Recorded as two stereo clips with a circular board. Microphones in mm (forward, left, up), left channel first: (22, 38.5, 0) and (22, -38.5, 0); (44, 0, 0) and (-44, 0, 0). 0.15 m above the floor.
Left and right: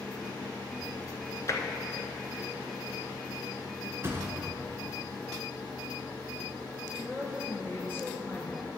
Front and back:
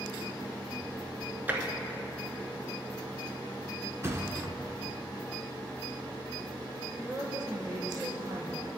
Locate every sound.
1.5 s tapping: 115° left, 0.9 m
4.0 s a thud: 135° right, 1.0 m
7.0 s a woman speaking: 145° left, 2 m